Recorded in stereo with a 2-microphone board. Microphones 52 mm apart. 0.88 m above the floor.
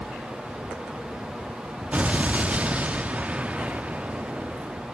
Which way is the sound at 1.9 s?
25° right (ahead or behind).